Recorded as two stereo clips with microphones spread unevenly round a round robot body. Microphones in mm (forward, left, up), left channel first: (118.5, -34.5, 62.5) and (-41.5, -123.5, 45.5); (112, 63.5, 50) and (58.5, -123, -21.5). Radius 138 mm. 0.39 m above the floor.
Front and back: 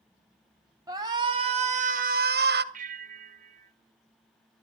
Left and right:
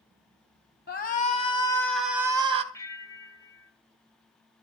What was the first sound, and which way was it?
A shout, 135° left.